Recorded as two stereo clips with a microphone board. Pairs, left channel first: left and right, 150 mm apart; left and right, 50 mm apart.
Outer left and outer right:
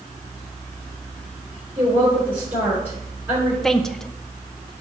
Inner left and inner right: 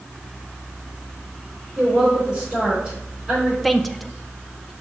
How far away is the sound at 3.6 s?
About 0.5 m.